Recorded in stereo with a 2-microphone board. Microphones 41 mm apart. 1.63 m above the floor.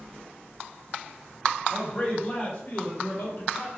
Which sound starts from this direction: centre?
A man speaking, at 1.7 s.